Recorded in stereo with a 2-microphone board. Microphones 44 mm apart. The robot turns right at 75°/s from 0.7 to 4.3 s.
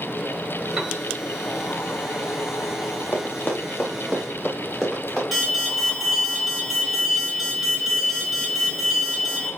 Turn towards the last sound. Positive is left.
turn(degrees=-5)  # may be behind; listen again after turning